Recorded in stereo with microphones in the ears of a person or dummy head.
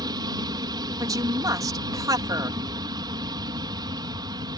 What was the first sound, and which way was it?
An aircraft, 25° right (ahead or behind).